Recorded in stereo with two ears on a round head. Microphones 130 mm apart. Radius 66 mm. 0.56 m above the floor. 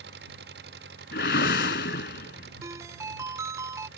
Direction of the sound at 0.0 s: 90° right.